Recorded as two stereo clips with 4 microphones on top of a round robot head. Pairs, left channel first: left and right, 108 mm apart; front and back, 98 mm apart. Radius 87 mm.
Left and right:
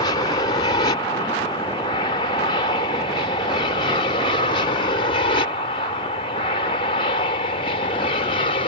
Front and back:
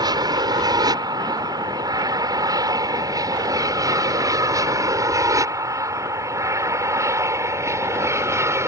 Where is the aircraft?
140° left; by 8.7 s 125° left.